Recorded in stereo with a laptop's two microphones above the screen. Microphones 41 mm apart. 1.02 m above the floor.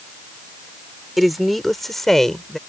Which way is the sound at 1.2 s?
5° right (ahead or behind).